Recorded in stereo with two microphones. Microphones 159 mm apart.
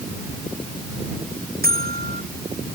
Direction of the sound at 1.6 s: 75° right (ahead or behind).